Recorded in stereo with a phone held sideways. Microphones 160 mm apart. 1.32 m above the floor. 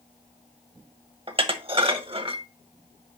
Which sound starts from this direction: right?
Dishes clattering, at 1.3 s.